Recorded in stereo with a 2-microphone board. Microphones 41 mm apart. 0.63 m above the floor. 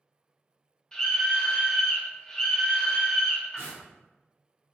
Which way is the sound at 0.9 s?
20° left (ahead or behind).